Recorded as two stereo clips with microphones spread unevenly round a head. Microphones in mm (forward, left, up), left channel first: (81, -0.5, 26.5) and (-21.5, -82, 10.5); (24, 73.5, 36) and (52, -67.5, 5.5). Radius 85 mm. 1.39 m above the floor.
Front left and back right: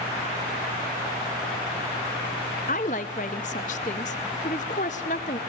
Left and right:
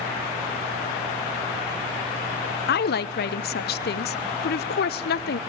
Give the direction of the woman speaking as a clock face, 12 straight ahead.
9 o'clock.